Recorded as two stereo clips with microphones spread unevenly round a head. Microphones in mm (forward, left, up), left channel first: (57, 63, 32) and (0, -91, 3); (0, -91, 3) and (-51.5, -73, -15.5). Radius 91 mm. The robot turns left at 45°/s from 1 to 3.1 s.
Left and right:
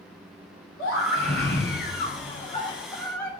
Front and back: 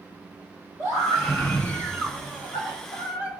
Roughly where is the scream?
Left.